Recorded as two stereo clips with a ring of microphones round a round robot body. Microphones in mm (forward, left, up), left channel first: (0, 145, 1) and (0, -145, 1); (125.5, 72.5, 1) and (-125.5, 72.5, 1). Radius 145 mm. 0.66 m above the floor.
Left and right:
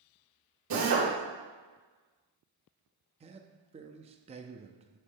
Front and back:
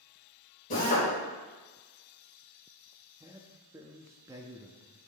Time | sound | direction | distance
0.7 | a drill | 60° right | 3 m
3.2 | a man speaking | 120° right | 0.5 m